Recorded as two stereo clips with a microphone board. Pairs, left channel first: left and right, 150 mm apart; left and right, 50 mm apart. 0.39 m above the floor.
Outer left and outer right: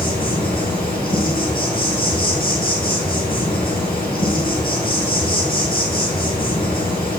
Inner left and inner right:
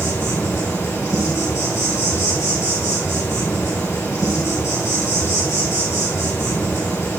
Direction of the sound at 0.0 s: 80° left.